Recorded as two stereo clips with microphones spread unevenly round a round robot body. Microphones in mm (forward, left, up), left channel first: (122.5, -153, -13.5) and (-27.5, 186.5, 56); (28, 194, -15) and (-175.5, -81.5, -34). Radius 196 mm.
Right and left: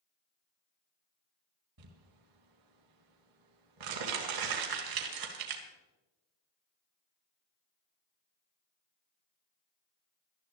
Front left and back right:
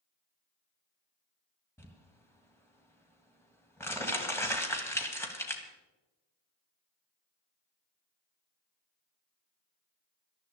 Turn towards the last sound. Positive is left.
turn(degrees=140)